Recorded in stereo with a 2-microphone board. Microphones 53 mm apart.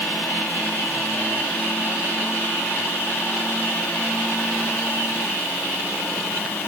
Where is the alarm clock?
I don't hear an alarm clock.